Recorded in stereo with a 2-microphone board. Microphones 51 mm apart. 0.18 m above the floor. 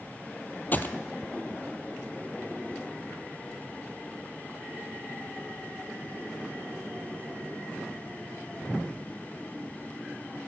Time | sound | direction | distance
0.7 | a gunshot | 35° left (ahead or behind) | 0.8 m